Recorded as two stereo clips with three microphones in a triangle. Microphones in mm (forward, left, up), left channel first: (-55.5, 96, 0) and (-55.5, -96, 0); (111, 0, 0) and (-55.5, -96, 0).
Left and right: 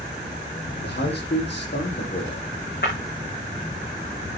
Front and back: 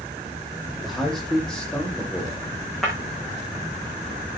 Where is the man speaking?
120° left, 6.5 m; by 2.5 s 105° left, 5 m.